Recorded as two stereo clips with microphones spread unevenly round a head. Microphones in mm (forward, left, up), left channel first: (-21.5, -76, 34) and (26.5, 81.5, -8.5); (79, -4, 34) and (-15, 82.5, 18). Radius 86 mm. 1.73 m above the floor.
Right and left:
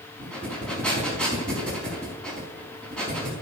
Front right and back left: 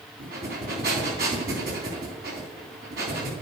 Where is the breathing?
175° left, 4 m.